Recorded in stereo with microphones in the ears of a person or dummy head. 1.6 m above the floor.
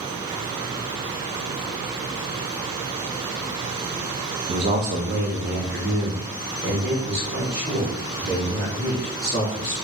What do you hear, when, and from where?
4.5 s a man speaking: 25° right (ahead or behind), 0.5 m; by 9.7 s 55° right (ahead or behind), 3.5 m